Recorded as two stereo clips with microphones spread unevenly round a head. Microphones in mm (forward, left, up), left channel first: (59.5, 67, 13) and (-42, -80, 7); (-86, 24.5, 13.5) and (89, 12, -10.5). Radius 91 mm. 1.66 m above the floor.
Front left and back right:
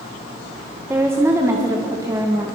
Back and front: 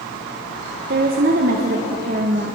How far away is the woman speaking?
About 1.7 m.